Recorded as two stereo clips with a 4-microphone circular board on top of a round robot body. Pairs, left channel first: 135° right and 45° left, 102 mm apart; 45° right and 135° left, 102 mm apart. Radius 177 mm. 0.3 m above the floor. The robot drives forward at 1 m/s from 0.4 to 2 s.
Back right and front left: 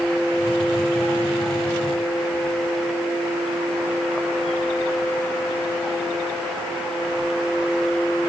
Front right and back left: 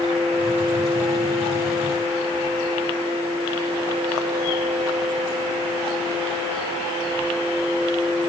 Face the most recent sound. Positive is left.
No sound to turn to.